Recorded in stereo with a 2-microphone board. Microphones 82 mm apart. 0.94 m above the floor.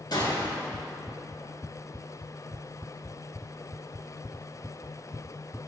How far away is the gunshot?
About 4 m.